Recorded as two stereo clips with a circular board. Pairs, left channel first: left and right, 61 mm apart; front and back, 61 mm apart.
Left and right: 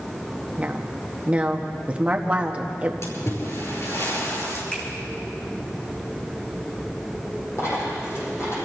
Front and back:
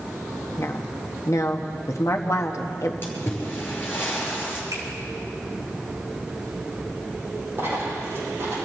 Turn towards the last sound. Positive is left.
turn(degrees=130)